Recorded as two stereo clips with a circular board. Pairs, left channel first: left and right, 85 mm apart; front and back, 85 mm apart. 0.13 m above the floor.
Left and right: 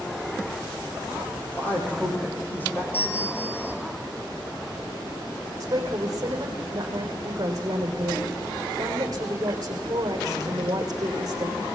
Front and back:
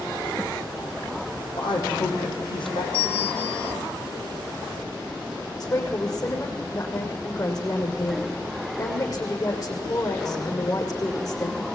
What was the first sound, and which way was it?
A man speaking, 20° left.